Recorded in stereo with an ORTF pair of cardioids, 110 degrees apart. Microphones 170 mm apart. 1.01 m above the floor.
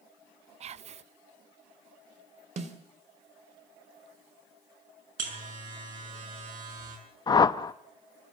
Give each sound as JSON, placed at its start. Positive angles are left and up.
{"t": 0.6, "sound": "whispering", "azimuth_deg": -40, "distance_m": 0.6}
{"t": 2.6, "sound": "a snare drum", "azimuth_deg": -45, "distance_m": 2.5}
{"t": 5.2, "sound": "a buzzer", "azimuth_deg": -50, "distance_m": 6.0}
{"t": 7.3, "sound": "a whoosh", "azimuth_deg": 25, "distance_m": 0.8}